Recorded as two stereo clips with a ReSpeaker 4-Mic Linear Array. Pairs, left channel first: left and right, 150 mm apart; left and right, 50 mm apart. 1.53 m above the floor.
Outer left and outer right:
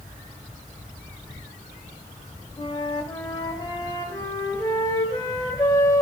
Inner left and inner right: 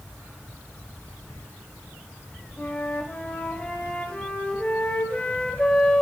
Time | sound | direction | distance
2.6 | a flute | 25° left (ahead or behind) | 1.0 m